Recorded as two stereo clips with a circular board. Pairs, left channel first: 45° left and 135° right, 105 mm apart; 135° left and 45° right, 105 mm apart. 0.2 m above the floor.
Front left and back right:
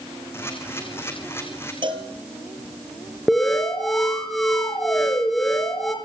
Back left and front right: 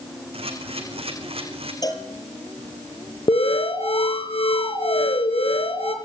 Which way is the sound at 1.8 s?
175° right.